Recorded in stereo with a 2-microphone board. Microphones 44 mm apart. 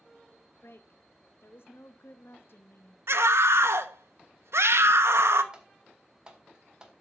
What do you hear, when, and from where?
0.6 s a woman speaking: 60° left (ahead or behind), 0.9 m
3.1 s a scream: 70° right (ahead or behind), 1.2 m
5.5 s typing on a keyboard: 20° right (ahead or behind), 1.9 m